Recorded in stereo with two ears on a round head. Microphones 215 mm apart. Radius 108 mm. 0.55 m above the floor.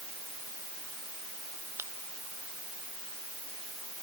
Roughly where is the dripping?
I don't hear dripping.